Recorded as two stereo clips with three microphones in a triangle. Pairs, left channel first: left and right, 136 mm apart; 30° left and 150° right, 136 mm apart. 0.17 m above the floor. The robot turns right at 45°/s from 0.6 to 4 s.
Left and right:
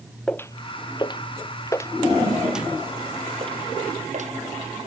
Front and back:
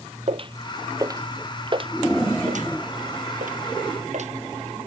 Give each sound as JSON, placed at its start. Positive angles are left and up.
{"t": 0.3, "sound": "footsteps", "azimuth_deg": 175}